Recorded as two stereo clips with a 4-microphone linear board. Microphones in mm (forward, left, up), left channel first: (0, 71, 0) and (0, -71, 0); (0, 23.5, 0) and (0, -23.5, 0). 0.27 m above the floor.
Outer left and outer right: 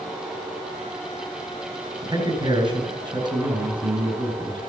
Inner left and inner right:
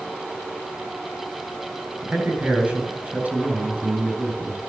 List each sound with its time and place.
2.0 s a man speaking: 35° right (ahead or behind), 4 m